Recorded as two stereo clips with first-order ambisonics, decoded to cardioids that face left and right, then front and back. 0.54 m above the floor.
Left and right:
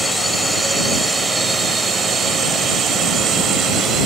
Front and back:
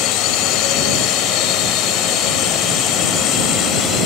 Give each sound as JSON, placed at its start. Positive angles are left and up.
{"t": 0.0, "sound": "a drone", "azimuth_deg": -5}